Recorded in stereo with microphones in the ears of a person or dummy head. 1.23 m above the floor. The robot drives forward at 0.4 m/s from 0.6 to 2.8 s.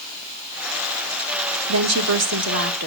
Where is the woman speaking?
75° right (ahead or behind), 1.1 m; by 2.9 s 55° right (ahead or behind), 1.3 m.